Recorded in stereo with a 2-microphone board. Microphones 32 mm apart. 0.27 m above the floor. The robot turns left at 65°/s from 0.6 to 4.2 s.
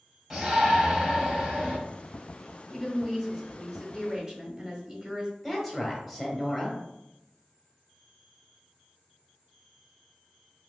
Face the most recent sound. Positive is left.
turn(degrees=5)  # may be behind; listen again after turning